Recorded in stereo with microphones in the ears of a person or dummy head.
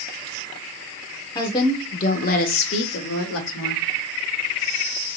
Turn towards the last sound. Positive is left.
turn(degrees=80)